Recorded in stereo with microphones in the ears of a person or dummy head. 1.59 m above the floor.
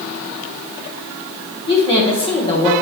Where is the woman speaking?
30° left (ahead or behind), 1.0 m.